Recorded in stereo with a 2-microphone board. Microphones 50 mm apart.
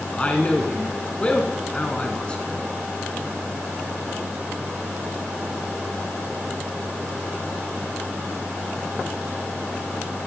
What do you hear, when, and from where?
0.1 s a man speaking: 25° left (ahead or behind), 1.4 m